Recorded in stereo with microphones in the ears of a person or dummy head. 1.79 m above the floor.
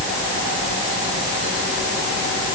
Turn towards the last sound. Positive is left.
No sound to turn to.